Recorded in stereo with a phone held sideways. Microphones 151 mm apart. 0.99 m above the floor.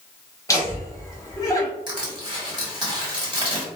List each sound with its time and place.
0.5 s laughter: 20° left (ahead or behind), 1.1 m
1.9 s crushing: 30° right (ahead or behind), 1.4 m